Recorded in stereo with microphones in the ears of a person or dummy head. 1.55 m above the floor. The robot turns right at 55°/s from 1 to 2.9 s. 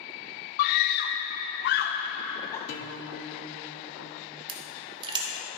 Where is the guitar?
50° left (ahead or behind), 0.9 m; by 4.4 s 60° left (ahead or behind), 0.9 m.